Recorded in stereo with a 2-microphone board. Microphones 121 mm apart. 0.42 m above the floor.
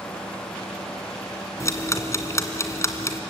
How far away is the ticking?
About 2 m.